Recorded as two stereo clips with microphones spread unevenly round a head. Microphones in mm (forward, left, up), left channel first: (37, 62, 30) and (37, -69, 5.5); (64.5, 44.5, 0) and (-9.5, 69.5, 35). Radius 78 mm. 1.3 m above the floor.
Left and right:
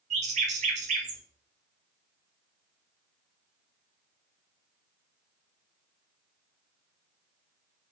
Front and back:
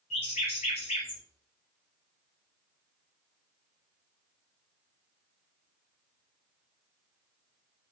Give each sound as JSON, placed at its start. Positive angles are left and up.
{"t": 0.1, "sound": "a bird", "azimuth_deg": -55, "distance_m": 0.9}